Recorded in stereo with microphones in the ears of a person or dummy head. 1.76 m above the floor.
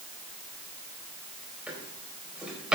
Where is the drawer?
10° right (ahead or behind), 4 m.